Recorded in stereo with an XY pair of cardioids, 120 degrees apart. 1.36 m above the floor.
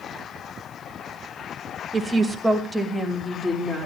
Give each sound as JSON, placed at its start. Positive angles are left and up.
{"t": 1.9, "sound": "a woman speaking", "azimuth_deg": -30, "distance_m": 1.7}